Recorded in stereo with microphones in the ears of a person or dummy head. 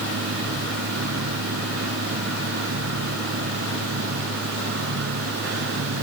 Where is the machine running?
70° right (ahead or behind).